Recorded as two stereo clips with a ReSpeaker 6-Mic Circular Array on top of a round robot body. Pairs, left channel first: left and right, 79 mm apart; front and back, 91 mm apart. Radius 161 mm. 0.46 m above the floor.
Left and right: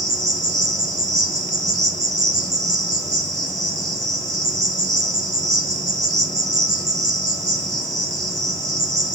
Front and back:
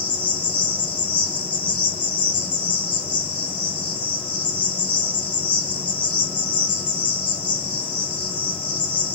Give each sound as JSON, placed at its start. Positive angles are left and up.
{"t": 0.0, "sound": "an insect", "azimuth_deg": -70, "distance_m": 1.6}